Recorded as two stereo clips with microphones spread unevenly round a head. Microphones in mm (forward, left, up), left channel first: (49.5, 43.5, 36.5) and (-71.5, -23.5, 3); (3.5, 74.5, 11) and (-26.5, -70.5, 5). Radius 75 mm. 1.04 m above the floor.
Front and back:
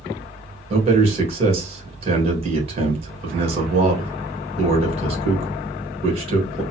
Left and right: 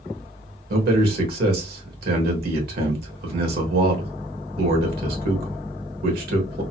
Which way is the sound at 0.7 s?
115° right.